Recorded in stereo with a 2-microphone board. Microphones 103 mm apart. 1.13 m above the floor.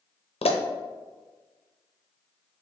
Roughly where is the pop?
Left.